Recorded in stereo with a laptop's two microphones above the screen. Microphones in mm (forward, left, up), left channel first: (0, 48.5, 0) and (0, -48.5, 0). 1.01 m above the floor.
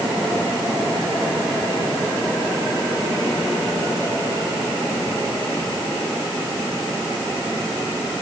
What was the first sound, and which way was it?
Only background noise.